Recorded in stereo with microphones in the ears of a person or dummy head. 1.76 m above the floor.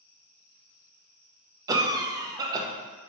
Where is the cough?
20° right (ahead or behind), 0.6 m.